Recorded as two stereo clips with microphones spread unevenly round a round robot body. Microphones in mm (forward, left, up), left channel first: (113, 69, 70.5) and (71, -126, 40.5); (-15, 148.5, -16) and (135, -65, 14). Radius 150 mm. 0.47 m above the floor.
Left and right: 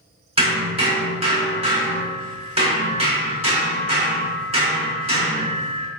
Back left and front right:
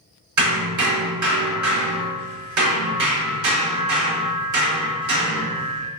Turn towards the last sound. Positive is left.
turn(degrees=-40)